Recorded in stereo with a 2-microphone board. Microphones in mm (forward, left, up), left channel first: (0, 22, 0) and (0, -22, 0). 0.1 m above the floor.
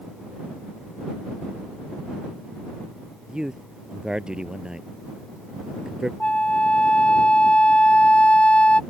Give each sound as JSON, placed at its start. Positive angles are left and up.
{"t": 3.3, "sound": "a man speaking", "side_deg": -15}
{"t": 6.2, "sound": "a flute", "side_deg": 30}